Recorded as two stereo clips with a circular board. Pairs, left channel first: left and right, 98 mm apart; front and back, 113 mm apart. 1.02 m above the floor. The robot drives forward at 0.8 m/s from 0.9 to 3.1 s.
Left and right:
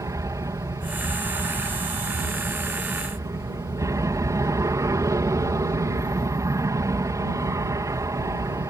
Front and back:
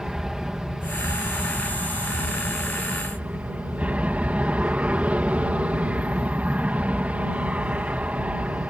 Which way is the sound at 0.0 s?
95° right.